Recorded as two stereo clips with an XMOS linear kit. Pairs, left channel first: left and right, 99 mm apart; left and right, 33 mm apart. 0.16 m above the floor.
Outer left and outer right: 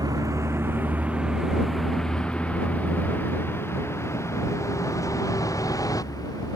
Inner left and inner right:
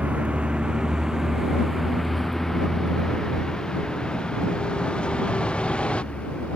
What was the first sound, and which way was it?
A vehicle, 40° right (ahead or behind).